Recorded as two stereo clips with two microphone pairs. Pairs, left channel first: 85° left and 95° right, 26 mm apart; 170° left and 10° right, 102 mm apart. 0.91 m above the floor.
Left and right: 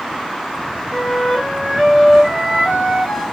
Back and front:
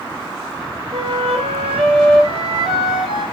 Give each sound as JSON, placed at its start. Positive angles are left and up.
{"t": 0.9, "sound": "a flute", "azimuth_deg": -5, "distance_m": 3.5}